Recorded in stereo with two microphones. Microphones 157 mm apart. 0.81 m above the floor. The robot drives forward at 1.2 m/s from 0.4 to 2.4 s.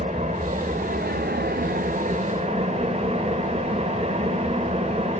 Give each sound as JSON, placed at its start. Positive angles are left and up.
{"t": 0.0, "sound": "an engine running", "side_deg": -45, "distance_m": 1.6}